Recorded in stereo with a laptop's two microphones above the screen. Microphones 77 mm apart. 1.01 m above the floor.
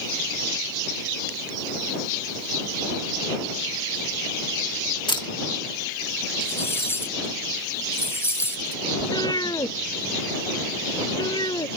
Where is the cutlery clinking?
30° left (ahead or behind).